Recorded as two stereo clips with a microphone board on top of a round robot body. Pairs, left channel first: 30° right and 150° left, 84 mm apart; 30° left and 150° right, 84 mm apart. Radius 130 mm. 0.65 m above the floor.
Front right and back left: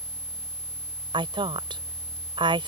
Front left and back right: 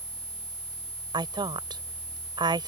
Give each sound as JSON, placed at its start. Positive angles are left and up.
{"t": 1.1, "sound": "a woman speaking", "azimuth_deg": 175}